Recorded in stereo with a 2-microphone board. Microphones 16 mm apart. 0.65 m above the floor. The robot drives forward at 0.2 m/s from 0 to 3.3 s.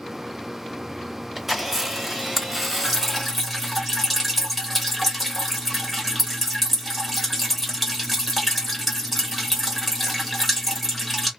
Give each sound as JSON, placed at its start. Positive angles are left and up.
{"t": 1.4, "sound": "a camera shutter", "side_deg": -15, "distance_m": 1.1}
{"t": 2.8, "sound": "dripping", "side_deg": 0, "distance_m": 1.0}